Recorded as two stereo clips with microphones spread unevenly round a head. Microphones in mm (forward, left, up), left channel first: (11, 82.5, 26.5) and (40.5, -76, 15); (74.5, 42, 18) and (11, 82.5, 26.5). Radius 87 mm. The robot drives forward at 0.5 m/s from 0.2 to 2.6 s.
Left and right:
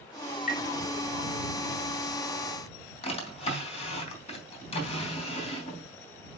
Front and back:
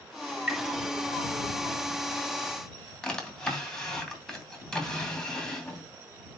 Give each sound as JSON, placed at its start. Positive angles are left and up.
{"t": 0.5, "sound": "tapping", "azimuth_deg": 65, "distance_m": 3.0}
{"t": 3.0, "sound": "a drawer", "azimuth_deg": 50, "distance_m": 3.0}